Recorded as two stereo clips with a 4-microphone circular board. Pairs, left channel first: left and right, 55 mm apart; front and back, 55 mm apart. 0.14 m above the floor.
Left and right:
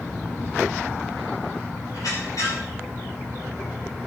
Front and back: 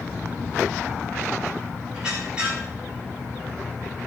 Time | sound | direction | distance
1.9 | a squeak | 105° left | 8 m